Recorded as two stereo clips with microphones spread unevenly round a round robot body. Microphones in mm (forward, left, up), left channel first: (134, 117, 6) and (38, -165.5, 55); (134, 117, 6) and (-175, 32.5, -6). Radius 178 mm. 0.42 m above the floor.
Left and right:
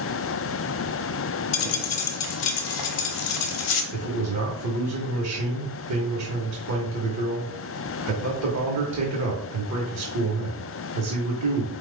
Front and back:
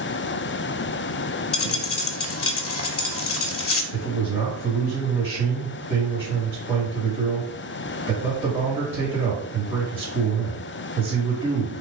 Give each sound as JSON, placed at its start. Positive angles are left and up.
{"t": 1.5, "sound": "a dropped coin", "azimuth_deg": 65, "distance_m": 0.8}
{"t": 3.9, "sound": "a man speaking", "azimuth_deg": -85, "distance_m": 1.3}